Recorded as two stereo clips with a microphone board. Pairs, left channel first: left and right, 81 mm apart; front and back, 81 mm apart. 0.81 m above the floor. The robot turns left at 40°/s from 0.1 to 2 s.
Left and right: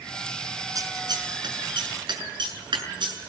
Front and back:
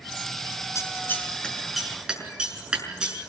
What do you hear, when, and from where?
0.8 s scissors: 50° right, 6 m; by 3.3 s 100° right, 6 m